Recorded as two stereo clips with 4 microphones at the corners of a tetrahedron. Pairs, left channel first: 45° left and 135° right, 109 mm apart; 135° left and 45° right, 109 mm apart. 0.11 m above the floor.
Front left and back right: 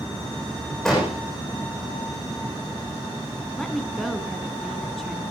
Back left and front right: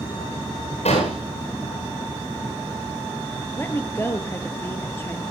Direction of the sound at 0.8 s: 130° left.